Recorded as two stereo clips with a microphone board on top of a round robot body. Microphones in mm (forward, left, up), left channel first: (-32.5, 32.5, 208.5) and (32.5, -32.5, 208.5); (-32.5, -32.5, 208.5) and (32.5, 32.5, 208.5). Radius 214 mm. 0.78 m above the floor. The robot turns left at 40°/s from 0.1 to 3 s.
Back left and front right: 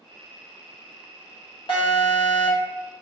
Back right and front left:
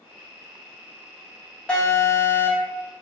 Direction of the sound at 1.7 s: 145° left.